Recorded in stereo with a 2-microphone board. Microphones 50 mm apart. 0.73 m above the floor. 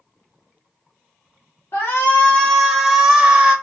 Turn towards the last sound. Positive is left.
turn(degrees=-20)  # may be behind; listen again after turning